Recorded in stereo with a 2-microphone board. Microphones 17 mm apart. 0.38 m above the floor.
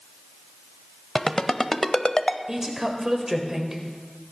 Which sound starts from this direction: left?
A ringtone, at 1.1 s.